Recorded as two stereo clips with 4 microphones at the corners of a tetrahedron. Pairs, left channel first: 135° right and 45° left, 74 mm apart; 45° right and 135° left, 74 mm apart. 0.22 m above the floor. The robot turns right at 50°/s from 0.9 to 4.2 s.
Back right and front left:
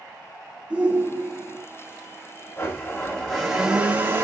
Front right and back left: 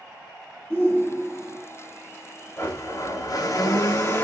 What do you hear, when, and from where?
0.7 s a shout: 5° right, 1.8 m; by 1.6 s 30° left, 1.8 m
2.6 s a blender: 90° right, 1.3 m; by 4.2 s 5° right, 1.3 m